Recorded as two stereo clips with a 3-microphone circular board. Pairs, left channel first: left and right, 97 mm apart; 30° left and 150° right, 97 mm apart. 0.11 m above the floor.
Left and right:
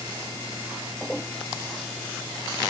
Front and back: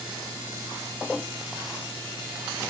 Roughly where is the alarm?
I don't hear an alarm.